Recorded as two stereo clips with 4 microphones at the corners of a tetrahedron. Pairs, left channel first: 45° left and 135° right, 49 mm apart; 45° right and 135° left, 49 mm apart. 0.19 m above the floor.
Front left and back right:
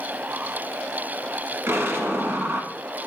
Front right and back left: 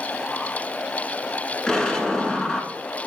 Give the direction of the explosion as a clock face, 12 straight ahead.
4 o'clock.